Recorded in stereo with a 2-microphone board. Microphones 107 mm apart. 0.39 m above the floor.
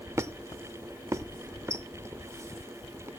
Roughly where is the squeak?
Right.